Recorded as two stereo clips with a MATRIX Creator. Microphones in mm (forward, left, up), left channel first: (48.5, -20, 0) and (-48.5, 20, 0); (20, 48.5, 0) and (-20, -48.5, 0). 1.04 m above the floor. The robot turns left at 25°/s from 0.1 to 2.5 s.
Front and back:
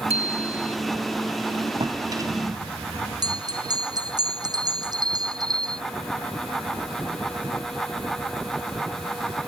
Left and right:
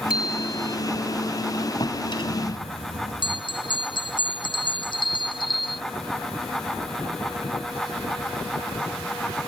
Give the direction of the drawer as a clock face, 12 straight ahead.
8 o'clock.